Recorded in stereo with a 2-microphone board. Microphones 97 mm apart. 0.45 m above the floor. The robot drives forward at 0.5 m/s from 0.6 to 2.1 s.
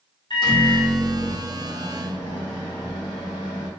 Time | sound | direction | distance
0.3 | a microwave | 50° left (ahead or behind) | 1.2 m